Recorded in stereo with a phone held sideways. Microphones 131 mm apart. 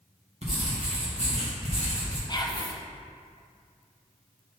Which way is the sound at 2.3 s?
35° left (ahead or behind).